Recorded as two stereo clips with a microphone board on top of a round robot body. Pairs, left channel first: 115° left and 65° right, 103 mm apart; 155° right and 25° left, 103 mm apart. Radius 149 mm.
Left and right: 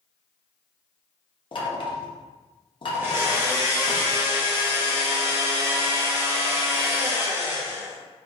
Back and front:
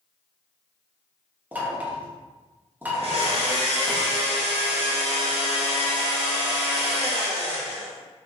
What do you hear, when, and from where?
1.5 s knocking: 90° left, 1.1 m
2.9 s a blender: straight ahead, 1.3 m